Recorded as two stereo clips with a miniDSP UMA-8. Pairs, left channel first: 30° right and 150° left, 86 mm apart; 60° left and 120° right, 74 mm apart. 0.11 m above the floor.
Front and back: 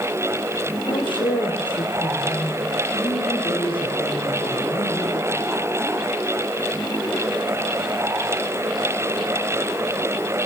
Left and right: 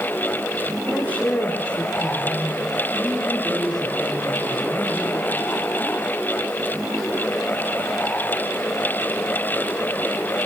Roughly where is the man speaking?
Ahead.